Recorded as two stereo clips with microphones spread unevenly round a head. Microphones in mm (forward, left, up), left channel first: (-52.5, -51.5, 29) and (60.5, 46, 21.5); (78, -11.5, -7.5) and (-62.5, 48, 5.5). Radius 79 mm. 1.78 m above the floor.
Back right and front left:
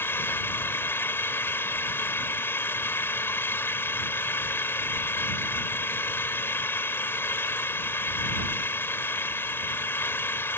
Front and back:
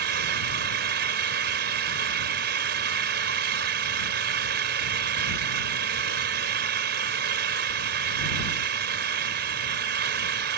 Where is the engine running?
145° left.